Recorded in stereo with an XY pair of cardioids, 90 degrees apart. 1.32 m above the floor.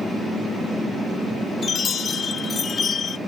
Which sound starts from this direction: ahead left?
A chime, at 1.6 s.